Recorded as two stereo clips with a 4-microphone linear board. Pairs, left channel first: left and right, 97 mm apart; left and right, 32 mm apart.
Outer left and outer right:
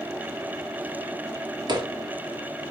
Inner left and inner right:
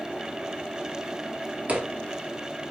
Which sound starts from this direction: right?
Footsteps, at 1.7 s.